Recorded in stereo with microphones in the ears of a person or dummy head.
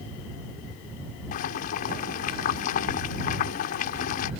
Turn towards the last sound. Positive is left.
turn(degrees=45)  # may be behind; listen again after turning